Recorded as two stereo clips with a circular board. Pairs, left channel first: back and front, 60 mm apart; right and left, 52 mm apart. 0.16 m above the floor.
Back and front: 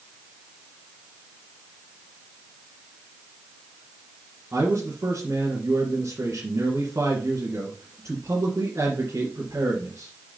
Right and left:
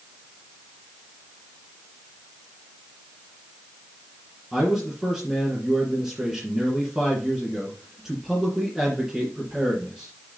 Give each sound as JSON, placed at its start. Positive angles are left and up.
{"t": 4.5, "sound": "a man speaking", "azimuth_deg": 10, "distance_m": 2.0}